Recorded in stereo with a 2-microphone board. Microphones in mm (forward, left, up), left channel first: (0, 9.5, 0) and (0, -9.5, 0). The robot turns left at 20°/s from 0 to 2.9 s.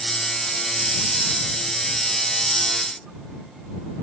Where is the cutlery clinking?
I don't hear cutlery clinking.